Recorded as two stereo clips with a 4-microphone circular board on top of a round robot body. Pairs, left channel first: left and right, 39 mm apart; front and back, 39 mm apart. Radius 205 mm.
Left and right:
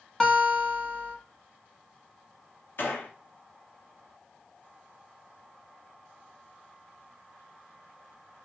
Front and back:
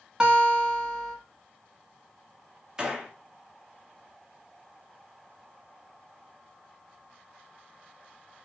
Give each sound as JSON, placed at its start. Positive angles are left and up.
{"t": 0.2, "sound": "a guitar", "azimuth_deg": 140, "distance_m": 1.2}
{"t": 2.8, "sound": "a gunshot", "azimuth_deg": 105, "distance_m": 1.0}